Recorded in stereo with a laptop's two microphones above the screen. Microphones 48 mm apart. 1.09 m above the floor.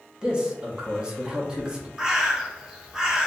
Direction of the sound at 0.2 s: 20° right (ahead or behind).